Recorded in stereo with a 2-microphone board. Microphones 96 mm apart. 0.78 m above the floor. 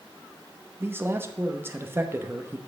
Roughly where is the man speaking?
Right.